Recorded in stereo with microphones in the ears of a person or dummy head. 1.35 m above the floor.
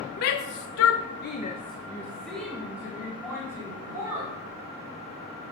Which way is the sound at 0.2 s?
55° left (ahead or behind).